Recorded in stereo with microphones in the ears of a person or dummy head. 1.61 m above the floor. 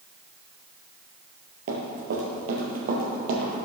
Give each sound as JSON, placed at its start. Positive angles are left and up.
{"t": 1.7, "sound": "running footsteps", "side_deg": -50, "distance_m": 2.5}